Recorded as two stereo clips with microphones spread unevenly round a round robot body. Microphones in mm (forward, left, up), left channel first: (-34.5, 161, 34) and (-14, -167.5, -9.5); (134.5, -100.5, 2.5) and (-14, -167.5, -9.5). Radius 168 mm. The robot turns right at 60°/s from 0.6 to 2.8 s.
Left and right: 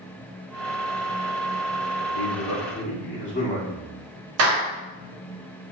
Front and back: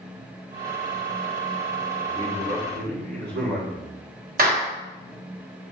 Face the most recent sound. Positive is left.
turn(degrees=-130)